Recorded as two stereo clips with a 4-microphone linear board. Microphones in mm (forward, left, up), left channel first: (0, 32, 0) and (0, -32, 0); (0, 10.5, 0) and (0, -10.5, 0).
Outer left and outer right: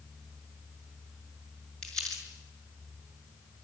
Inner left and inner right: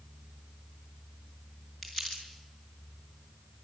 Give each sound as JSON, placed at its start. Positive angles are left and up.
{"t": 1.8, "sound": "crumpling", "side_deg": 10, "distance_m": 6.5}